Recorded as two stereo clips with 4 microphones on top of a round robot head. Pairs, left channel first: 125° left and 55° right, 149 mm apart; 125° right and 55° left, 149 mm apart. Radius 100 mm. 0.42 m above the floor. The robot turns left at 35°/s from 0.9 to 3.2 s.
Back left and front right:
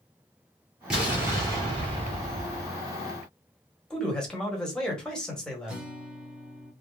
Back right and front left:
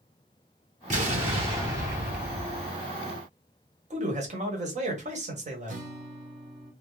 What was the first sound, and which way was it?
An explosion, 30° left.